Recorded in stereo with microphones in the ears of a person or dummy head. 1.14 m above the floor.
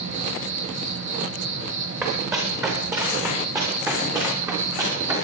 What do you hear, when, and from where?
0.0 s an insect: 40° right (ahead or behind), 9.5 m
2.0 s running footsteps: 10° right (ahead or behind), 9 m; by 5.2 s 20° right (ahead or behind), 10.5 m